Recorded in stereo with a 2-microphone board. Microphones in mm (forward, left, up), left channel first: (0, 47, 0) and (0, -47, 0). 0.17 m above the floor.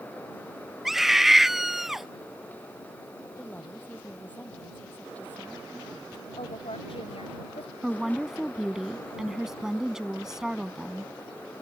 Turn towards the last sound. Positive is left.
turn(degrees=-5)  # may be behind; listen again after turning